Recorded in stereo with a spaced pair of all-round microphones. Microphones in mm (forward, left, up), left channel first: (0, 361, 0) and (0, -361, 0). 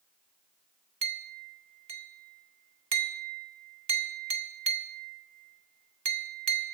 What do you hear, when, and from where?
1.0 s a clink: 50° right (ahead or behind), 1.5 m